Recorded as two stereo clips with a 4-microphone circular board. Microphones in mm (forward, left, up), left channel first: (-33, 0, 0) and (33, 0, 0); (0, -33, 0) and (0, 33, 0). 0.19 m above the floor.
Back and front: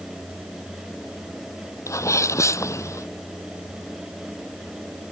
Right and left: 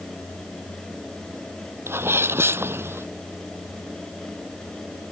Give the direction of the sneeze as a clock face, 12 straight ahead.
7 o'clock.